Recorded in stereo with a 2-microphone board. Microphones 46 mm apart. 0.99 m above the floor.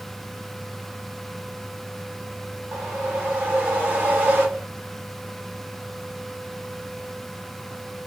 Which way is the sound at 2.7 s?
40° right (ahead or behind).